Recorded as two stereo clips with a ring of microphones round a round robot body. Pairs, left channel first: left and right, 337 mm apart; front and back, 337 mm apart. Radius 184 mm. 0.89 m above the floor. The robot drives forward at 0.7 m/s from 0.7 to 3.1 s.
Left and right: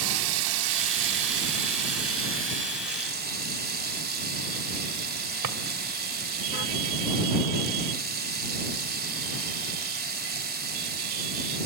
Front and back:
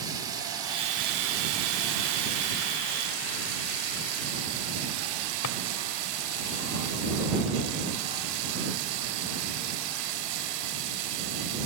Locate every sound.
0.0 s running water: 100° right, 1.0 m; by 11.7 s 155° right, 2 m
5.4 s a drawer: 45° right, 1.1 m